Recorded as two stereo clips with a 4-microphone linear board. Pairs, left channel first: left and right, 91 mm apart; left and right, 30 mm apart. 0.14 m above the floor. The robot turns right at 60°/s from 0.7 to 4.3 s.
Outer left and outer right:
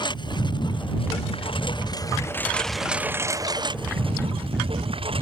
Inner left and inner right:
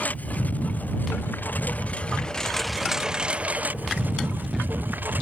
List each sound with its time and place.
0.0 s a lawn mower: 60° left; by 5.2 s 85° right